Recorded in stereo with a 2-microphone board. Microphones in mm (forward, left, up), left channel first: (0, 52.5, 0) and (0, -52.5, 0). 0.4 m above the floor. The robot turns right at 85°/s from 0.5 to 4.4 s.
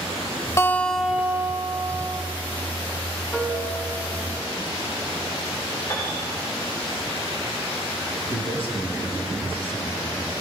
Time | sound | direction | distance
0.6 | a guitar | 145° left | 1.3 m
3.3 | a piano | straight ahead | 2.5 m
5.9 | a piano | 25° left (ahead or behind) | 5 m
8.3 | a man speaking | 55° left (ahead or behind) | 5 m